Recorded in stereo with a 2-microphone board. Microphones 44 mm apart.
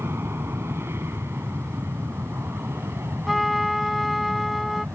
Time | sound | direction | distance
0.0 | an aircraft | 70° right (ahead or behind) | ?
3.3 | a trumpet | centre (ahead or behind) | ?